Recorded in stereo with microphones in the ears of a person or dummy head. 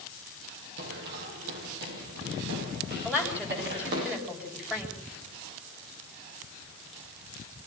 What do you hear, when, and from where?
0.8 s running footsteps: 60° right (ahead or behind), 4.5 m
3.0 s a woman speaking: 10° right (ahead or behind), 8 m